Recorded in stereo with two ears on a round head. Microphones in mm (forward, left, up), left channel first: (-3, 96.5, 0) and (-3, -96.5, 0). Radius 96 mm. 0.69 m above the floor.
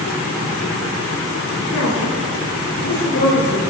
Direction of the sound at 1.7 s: 80° left.